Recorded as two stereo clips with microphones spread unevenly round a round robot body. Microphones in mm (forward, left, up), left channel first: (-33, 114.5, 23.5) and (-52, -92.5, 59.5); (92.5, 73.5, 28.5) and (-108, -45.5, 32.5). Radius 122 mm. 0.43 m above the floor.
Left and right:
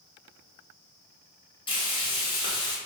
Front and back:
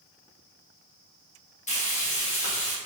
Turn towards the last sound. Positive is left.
turn(degrees=60)